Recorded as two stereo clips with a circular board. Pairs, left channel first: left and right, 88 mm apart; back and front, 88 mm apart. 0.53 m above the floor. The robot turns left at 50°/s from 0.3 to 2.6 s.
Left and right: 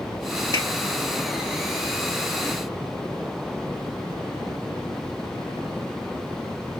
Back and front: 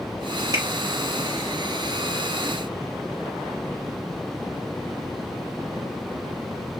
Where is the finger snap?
45° left, 1.9 m; by 0.7 s 40° left, 1.9 m.